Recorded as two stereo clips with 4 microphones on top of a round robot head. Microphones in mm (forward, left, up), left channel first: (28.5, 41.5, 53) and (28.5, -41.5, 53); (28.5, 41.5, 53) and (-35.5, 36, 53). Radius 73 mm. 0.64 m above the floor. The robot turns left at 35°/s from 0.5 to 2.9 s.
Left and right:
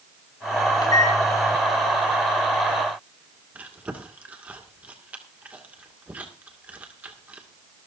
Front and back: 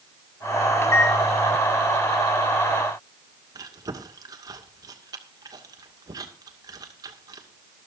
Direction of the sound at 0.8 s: 50° left.